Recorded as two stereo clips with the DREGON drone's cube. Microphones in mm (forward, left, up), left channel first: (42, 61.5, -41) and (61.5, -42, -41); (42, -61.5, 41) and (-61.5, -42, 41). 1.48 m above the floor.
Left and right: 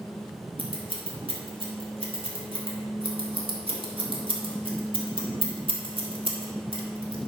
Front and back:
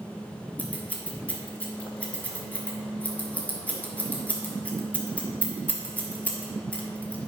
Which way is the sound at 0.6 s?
85° right.